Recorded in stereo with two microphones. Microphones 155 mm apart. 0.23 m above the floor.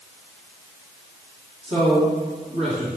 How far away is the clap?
No clap in this recording.